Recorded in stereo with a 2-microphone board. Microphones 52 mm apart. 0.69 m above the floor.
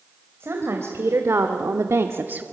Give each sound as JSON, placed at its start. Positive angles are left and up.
{"t": 0.4, "sound": "a woman speaking", "side_deg": -50, "distance_m": 3.0}